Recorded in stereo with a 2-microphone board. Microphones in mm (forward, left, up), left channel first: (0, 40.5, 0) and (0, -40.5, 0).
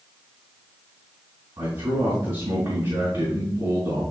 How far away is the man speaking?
About 4 m.